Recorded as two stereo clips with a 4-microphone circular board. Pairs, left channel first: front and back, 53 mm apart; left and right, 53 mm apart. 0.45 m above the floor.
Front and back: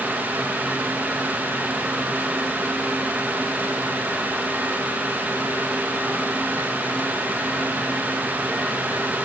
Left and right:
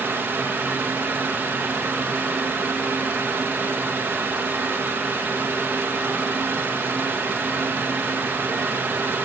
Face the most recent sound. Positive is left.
No sound to turn to.